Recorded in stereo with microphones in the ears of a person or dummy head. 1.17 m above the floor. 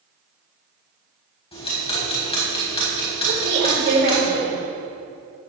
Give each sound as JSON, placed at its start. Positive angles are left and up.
{"t": 1.5, "sound": "ticking", "side_deg": 25, "distance_m": 4.5}
{"t": 3.3, "sound": "a woman speaking", "side_deg": -65, "distance_m": 4.5}